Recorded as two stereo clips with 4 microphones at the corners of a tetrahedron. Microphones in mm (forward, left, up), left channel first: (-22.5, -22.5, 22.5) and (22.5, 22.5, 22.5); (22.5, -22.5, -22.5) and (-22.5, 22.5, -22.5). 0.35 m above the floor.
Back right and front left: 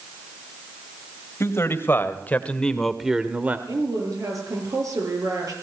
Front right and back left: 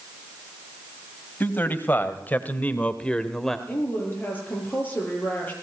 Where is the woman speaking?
15° left, 7.5 m.